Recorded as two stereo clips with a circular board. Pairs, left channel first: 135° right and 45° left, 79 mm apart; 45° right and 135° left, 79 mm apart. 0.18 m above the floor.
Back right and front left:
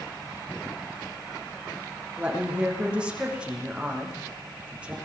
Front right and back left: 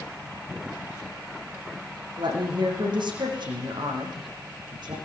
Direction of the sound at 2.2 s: 120° left.